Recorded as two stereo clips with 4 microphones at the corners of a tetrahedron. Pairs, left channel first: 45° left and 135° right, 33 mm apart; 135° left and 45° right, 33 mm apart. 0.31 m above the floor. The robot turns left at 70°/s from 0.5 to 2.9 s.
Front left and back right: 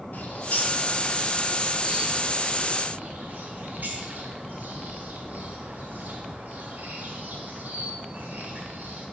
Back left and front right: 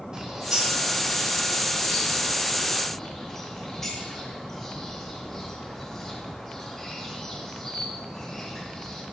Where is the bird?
25° left, 2.0 m; by 9.0 s 140° right, 2.0 m.